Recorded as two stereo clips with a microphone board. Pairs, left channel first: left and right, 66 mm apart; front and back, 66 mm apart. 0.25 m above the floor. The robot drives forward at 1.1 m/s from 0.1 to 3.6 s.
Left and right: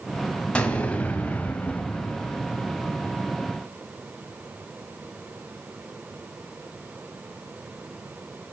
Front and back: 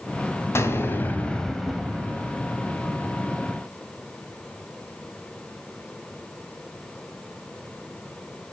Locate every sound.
0.6 s an explosion: 25° left, 1.8 m; by 2.4 s 145° left, 1.6 m